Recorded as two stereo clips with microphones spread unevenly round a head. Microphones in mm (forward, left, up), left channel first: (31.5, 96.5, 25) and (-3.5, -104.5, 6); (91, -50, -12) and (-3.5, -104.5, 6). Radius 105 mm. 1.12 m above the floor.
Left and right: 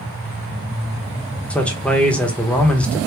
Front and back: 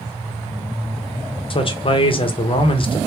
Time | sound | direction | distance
1.5 | a man speaking | 5° right | 0.8 m